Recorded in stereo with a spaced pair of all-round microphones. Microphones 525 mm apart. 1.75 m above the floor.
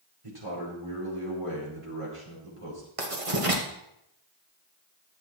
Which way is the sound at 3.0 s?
90° right.